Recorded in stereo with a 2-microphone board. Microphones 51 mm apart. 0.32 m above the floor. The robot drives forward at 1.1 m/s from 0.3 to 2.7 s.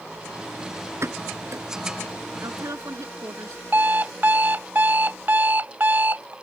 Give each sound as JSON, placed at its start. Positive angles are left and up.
{"t": 1.0, "sound": "a pop", "side_deg": -60}
{"t": 2.4, "sound": "a woman speaking", "side_deg": -70}
{"t": 3.7, "sound": "an alarm clock", "side_deg": -35}